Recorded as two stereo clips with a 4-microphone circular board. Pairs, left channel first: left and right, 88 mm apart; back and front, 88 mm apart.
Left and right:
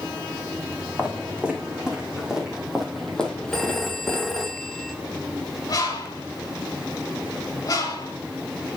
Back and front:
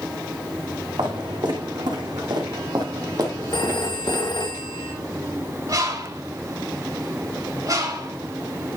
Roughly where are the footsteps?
Ahead.